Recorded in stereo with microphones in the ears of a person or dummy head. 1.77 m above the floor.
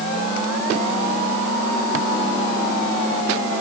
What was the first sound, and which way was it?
Only background noise.